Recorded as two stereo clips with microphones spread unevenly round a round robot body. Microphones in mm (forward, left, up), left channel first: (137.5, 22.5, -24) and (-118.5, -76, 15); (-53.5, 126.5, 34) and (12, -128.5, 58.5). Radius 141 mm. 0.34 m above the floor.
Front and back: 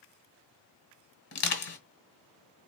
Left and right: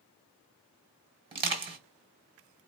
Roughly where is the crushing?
Ahead.